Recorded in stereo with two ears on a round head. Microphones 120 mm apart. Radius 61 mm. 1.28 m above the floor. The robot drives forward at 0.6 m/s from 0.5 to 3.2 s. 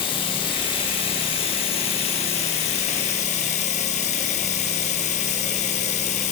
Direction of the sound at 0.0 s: 40° left (ahead or behind).